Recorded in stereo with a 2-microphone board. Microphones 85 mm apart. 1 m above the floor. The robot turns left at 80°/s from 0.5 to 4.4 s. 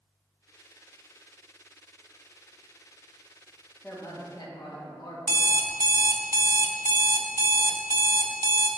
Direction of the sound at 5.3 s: 40° right (ahead or behind).